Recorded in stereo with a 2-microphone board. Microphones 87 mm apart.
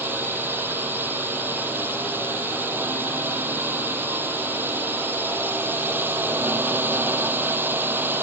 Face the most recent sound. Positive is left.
turn(degrees=-25)  # may be behind; listen again after turning